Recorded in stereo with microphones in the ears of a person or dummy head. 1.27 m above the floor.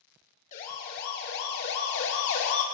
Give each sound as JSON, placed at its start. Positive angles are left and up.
{"t": 0.5, "sound": "a siren", "side_deg": 45, "distance_m": 3.0}